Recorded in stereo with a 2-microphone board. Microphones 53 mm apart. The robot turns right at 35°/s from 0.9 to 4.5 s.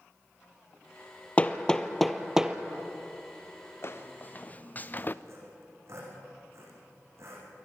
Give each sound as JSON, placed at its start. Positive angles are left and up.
{"t": 1.4, "sound": "hammering", "side_deg": 25, "distance_m": 1.0}
{"t": 3.8, "sound": "footsteps", "side_deg": 50, "distance_m": 2.0}
{"t": 5.2, "sound": "sawing", "side_deg": -60, "distance_m": 6.5}